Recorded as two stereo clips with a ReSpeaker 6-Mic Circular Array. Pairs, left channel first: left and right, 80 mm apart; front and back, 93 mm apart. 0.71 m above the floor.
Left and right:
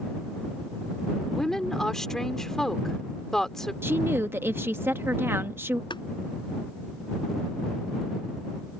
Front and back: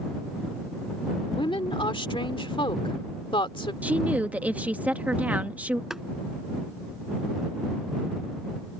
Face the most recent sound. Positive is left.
turn(degrees=95)